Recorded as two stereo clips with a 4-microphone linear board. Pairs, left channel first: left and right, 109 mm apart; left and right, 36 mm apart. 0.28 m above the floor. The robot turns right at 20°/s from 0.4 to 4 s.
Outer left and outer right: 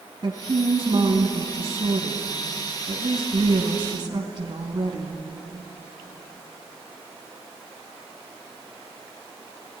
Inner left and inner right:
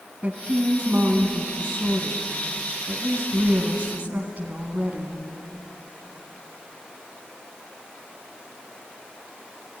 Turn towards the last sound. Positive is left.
turn(degrees=-55)